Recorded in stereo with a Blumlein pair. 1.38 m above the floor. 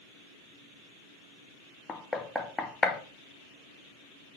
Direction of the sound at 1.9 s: 15° left.